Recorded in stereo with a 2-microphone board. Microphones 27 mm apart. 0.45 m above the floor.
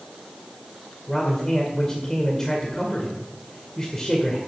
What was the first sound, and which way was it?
A man speaking, 20° left (ahead or behind).